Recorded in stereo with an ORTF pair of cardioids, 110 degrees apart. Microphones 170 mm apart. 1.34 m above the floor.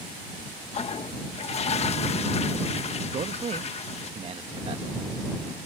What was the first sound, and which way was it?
A toilet flushing, 35° left.